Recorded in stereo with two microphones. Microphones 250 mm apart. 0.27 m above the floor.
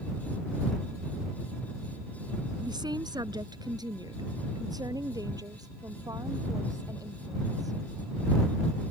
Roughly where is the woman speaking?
Centre.